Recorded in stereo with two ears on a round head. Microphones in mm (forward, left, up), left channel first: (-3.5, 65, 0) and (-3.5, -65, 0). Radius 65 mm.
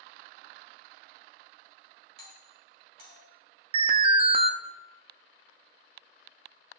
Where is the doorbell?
70° right (ahead or behind), 2.5 m.